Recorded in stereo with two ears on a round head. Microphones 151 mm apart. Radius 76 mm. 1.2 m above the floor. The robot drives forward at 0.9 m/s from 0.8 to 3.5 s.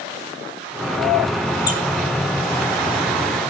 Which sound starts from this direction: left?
A squeak, at 1.7 s.